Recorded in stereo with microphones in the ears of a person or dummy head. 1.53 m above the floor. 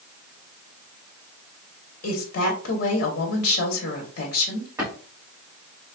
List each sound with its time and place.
2.0 s a woman speaking: 50° left (ahead or behind), 0.9 m
4.8 s a drawer: 20° right (ahead or behind), 1.3 m